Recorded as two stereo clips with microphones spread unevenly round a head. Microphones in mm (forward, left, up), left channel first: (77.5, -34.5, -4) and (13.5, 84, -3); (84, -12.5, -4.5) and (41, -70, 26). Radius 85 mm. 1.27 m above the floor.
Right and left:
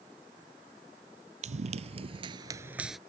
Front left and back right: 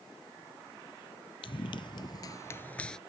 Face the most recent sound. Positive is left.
turn(degrees=-150)